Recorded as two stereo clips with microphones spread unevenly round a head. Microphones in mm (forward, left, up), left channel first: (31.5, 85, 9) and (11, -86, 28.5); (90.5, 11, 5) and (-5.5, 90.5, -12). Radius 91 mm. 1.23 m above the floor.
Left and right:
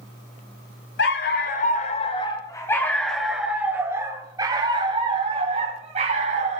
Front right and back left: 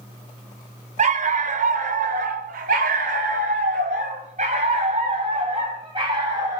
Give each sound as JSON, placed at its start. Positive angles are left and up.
{"t": 1.0, "sound": "a dog barking", "azimuth_deg": 120, "distance_m": 1.9}